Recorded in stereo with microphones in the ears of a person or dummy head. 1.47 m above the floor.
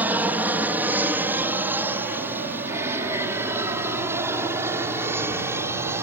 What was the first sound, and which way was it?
An aircraft, 10° right (ahead or behind).